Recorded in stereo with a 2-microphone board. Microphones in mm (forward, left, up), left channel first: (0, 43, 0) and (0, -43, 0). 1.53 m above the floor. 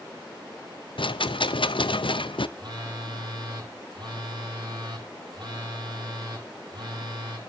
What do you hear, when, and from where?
1.0 s a rattle: 75° left (ahead or behind), 0.6 m
2.6 s a phone buzzing: 60° right (ahead or behind), 3 m